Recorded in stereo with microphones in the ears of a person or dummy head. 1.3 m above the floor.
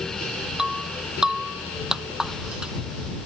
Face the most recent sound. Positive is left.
turn(degrees=0)  # may be behind; listen again after turning